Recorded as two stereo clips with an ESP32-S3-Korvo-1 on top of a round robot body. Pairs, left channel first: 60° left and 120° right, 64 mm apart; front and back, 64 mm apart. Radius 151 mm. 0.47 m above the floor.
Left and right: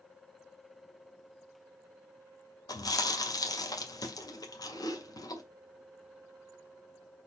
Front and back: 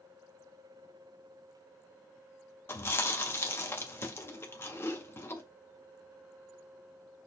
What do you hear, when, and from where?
2.7 s chewing: 50° left, 2.5 m